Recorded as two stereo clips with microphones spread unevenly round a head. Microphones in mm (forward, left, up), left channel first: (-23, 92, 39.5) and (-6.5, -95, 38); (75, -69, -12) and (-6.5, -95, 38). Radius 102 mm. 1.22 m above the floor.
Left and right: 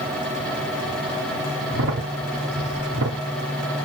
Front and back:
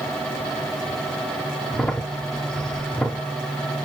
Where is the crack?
80° right, 1.2 m.